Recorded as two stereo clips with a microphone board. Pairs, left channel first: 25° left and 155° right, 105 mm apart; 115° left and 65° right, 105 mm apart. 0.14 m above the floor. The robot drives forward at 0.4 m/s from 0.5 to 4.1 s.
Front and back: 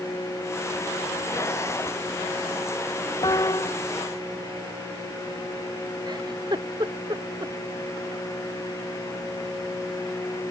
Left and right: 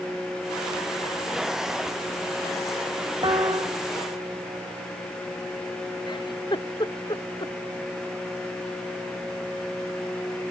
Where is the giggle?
155° left.